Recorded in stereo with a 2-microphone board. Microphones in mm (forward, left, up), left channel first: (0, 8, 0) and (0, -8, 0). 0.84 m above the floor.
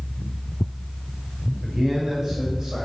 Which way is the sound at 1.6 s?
45° right (ahead or behind).